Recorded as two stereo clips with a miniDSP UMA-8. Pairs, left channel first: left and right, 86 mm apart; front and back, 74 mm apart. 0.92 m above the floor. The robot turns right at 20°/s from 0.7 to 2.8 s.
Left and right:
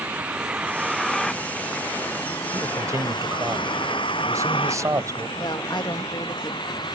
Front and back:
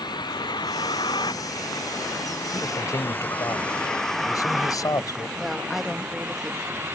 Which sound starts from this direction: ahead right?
A man speaking, at 2.5 s.